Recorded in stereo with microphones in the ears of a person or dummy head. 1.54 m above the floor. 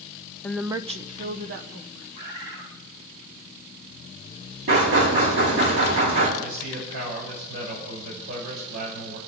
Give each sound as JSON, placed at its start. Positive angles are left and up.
{"t": 0.4, "sound": "a woman speaking", "side_deg": 10, "distance_m": 0.5}
{"t": 2.1, "sound": "a bird", "side_deg": -75, "distance_m": 4.0}
{"t": 4.7, "sound": "knocking", "side_deg": -70, "distance_m": 6.5}
{"t": 6.4, "sound": "a man speaking", "side_deg": -75, "distance_m": 8.0}